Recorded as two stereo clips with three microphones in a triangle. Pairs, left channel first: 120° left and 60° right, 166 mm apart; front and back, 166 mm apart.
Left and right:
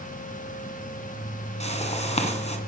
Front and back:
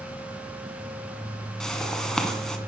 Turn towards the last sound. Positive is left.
turn(degrees=85)